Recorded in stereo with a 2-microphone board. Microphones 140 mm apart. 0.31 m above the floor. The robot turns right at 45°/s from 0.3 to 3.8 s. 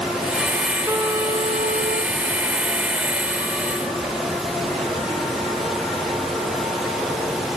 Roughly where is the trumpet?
Behind.